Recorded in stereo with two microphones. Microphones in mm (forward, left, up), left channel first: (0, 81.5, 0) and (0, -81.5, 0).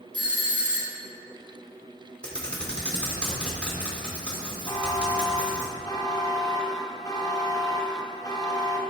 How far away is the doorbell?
About 1.0 m.